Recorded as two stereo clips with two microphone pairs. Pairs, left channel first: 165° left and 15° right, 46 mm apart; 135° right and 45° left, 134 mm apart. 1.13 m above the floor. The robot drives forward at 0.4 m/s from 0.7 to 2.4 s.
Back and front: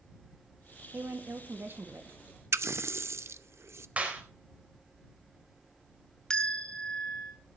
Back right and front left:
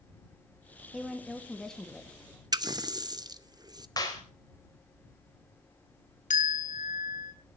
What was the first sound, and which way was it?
A woman speaking, 45° right.